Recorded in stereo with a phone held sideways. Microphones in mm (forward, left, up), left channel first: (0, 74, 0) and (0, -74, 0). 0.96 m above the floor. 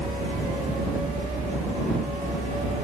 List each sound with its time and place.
0.0 s a helicopter: 55° right (ahead or behind)